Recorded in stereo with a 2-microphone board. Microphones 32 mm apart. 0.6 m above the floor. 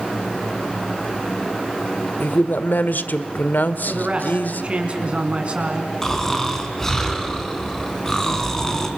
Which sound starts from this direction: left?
A man speaking, at 2.2 s.